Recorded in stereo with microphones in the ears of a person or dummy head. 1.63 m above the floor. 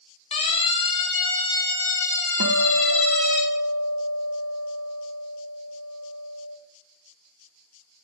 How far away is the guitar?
About 1.2 m.